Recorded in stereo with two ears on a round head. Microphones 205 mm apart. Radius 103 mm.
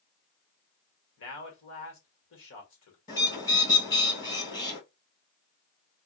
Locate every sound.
1.2 s a man speaking: 60° left (ahead or behind), 2 m
3.1 s a bird: 20° left (ahead or behind), 2 m